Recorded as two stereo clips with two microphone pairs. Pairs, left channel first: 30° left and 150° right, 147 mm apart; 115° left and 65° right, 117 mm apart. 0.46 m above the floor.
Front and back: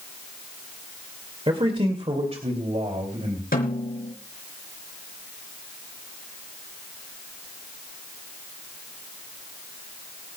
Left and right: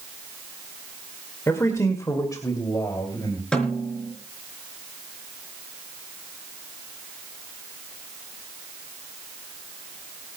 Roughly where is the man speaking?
Behind.